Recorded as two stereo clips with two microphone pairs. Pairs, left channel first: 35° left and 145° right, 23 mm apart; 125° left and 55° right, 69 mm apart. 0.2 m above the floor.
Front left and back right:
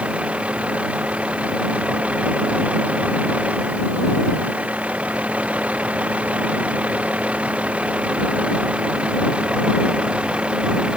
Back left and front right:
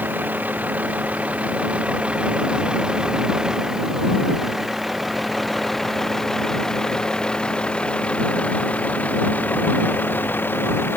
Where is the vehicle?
120° right; by 11.0 s 175° right.